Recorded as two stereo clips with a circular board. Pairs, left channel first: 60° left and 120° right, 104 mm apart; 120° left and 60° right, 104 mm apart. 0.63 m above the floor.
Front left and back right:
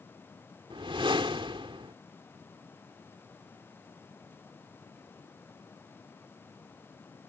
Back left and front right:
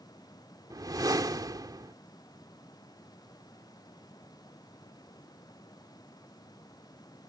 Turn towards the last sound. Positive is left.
turn(degrees=-105)